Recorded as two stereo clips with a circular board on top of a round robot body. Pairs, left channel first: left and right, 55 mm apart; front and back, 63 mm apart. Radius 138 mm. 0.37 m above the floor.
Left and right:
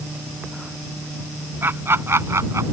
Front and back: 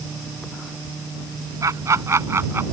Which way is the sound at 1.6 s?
145° right.